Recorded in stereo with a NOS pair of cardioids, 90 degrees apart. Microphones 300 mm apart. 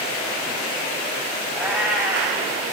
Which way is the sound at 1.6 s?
5° right.